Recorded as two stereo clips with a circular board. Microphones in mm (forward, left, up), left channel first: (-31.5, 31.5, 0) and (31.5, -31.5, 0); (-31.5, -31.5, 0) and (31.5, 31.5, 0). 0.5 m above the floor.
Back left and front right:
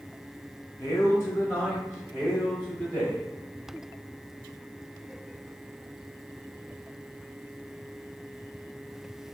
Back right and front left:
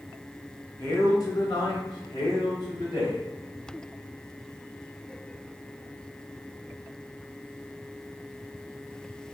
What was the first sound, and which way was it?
A man speaking, 170° left.